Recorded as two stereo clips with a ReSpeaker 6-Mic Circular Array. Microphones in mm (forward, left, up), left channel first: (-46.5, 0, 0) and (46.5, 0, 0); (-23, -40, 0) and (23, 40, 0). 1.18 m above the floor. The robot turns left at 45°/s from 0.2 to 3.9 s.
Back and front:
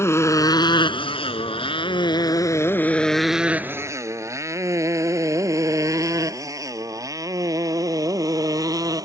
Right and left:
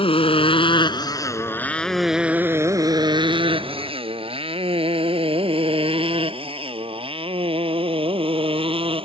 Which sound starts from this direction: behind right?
A motorcycle, at 0.0 s.